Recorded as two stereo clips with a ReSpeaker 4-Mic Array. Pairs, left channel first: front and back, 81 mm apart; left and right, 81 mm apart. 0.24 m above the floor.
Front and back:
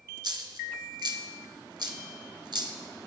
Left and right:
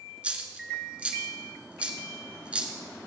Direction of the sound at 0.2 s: 165° right.